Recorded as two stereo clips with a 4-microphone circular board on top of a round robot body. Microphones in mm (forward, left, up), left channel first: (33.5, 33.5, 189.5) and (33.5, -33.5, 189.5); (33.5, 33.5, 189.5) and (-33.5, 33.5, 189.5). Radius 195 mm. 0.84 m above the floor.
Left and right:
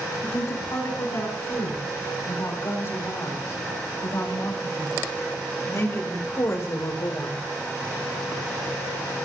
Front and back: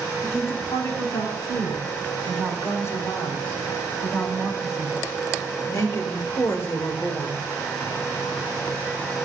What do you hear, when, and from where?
0.2 s a woman speaking: 45° left, 9 m